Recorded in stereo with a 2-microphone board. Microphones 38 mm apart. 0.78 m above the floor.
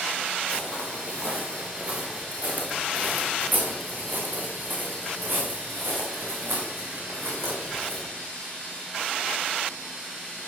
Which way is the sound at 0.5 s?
25° right (ahead or behind).